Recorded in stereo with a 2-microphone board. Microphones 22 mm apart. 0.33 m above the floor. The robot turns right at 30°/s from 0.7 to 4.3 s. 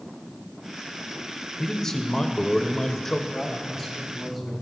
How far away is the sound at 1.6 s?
About 0.9 m.